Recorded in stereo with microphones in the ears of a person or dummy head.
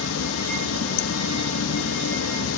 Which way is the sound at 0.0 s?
80° left.